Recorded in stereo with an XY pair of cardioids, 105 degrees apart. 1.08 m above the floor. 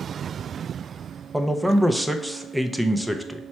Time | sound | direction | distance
1.3 | a man speaking | 5° right | 0.5 m